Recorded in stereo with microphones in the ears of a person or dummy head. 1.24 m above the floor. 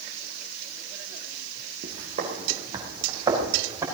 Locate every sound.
1.8 s footsteps: 50° right (ahead or behind), 2.5 m; by 3.9 s 20° right (ahead or behind), 4.5 m